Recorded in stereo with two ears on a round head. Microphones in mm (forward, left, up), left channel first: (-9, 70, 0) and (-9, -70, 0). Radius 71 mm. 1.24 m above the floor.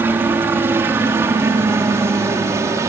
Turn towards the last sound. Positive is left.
turn(degrees=-20)  # may be behind; listen again after turning